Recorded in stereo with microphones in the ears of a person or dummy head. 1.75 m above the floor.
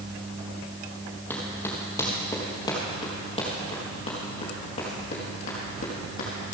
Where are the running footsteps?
10° left (ahead or behind), 3 m; by 6.5 s 55° left (ahead or behind), 4 m.